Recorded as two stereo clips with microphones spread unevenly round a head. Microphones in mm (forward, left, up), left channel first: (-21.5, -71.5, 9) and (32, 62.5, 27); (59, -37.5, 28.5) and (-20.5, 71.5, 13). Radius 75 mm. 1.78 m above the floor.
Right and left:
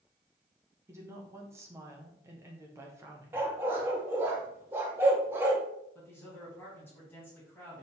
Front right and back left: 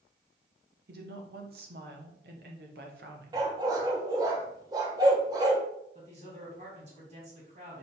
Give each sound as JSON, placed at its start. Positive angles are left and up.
{"t": 0.9, "sound": "a woman speaking", "azimuth_deg": 140, "distance_m": 1.7}
{"t": 3.3, "sound": "a dog barking", "azimuth_deg": 95, "distance_m": 1.2}
{"t": 6.0, "sound": "a man speaking", "azimuth_deg": 170, "distance_m": 3.0}